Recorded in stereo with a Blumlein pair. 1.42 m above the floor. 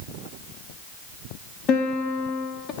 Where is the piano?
35° left, 2 m.